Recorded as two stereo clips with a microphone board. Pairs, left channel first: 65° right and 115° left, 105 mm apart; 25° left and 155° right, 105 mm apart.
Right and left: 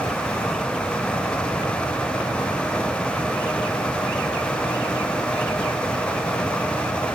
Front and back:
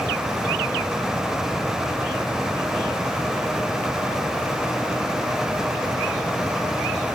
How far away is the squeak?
No squeak in this recording.